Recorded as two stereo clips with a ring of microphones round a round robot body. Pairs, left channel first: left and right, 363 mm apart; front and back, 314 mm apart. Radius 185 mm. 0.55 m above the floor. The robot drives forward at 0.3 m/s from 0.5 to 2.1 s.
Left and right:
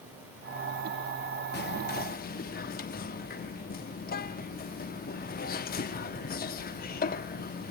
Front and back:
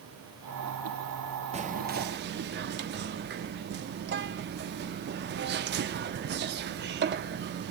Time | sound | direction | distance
1.5 | whispering | 125° left | 0.7 m